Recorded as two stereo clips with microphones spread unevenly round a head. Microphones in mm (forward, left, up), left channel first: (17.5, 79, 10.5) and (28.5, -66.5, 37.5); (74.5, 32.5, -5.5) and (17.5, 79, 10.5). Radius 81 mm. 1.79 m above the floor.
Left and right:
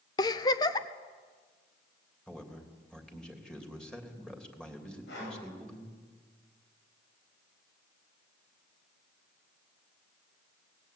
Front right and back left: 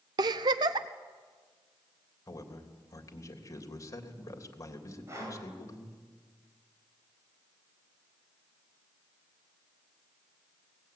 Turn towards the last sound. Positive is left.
turn(degrees=95)